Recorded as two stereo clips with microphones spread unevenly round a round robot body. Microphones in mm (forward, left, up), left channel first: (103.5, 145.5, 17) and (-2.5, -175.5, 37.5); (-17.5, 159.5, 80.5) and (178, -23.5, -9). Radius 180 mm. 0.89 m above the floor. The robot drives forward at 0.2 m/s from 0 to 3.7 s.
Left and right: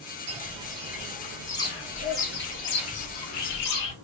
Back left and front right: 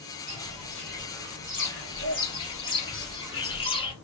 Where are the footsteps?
165° right, 1.0 m; by 3.9 s 85° left, 1.3 m.